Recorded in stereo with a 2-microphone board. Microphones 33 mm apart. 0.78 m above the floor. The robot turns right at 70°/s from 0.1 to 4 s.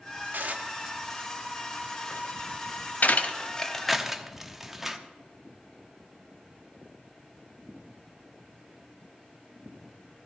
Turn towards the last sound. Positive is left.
turn(degrees=-5)  # may be behind; listen again after turning